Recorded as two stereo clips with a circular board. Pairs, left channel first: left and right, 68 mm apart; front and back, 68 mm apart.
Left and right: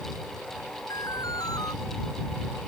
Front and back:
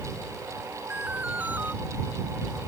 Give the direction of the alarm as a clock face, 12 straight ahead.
8 o'clock.